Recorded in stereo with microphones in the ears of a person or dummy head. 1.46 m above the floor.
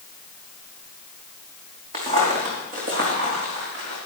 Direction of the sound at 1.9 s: 40° right (ahead or behind).